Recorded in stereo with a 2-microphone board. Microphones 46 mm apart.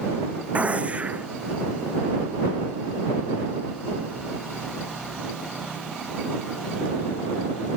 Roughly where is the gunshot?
Right.